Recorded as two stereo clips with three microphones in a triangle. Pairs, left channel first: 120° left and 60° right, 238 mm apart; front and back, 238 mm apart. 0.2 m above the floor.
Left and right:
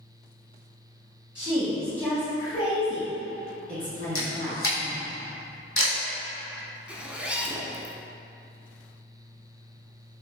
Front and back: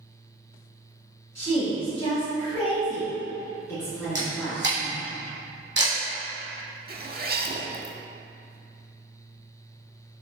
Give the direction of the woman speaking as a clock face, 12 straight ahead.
11 o'clock.